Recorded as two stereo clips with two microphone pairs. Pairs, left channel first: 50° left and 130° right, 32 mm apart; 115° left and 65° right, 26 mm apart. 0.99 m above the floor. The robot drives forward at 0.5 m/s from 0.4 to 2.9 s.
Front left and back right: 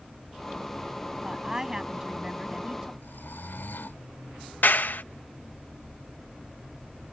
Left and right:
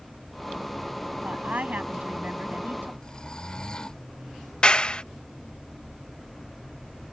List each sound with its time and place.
1.2 s a woman speaking: 60° right; by 2.9 s 65° right
3.0 s snoring: 50° left
4.6 s a clap: 60° left